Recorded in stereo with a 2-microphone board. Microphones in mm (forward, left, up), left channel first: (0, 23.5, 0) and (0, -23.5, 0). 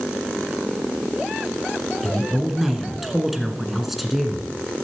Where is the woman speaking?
5° right (ahead or behind), 1.7 m.